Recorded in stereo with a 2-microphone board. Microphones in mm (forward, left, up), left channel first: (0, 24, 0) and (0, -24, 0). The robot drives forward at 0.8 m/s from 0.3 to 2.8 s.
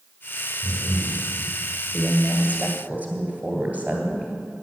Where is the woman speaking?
25° right (ahead or behind), 2 m; by 4.3 s 35° right (ahead or behind), 1.7 m.